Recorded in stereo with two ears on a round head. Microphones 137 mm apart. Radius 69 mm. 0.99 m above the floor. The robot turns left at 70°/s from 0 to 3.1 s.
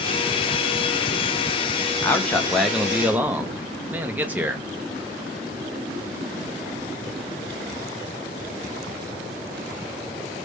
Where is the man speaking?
15° left (ahead or behind), 0.6 m; by 4.7 s 10° right (ahead or behind), 0.6 m.